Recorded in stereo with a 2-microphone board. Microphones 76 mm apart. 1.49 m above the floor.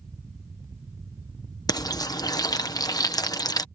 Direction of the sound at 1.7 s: 55° left (ahead or behind).